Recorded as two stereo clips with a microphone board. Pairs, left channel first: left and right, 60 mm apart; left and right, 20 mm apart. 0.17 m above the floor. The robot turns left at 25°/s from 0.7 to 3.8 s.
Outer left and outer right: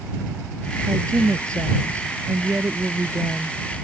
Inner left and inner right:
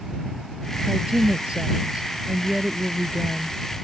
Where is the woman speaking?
90° right; by 3.6 s 160° right.